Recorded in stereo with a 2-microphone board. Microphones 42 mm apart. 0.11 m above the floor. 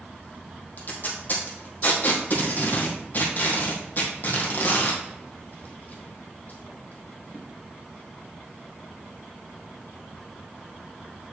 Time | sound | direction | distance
0.8 | tape being pulled | 45° left (ahead or behind) | 2.5 m